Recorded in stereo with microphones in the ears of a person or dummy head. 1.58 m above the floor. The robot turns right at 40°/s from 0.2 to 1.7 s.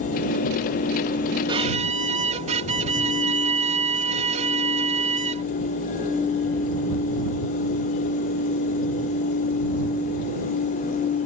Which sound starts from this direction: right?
A violin, at 1.5 s.